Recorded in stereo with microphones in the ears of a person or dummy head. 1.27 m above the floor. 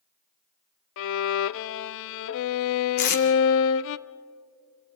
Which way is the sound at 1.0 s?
70° left (ahead or behind).